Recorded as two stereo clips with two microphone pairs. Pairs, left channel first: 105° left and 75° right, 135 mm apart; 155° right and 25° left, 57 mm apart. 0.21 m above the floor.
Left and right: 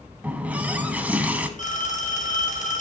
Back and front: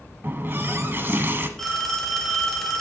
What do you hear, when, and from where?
0.2 s a running tap: straight ahead, 1.0 m
1.6 s a phone ringing: 120° left, 2 m